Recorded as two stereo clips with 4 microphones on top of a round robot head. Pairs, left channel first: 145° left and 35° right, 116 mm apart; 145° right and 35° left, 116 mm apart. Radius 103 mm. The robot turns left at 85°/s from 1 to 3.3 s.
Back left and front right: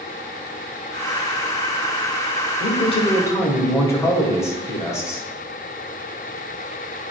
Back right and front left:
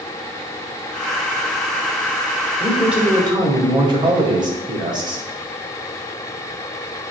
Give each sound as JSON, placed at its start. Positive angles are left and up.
{"t": 2.6, "sound": "a man speaking", "azimuth_deg": 140, "distance_m": 2.0}